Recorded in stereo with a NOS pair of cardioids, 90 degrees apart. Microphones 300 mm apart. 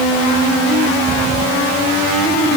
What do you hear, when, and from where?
Only background noise.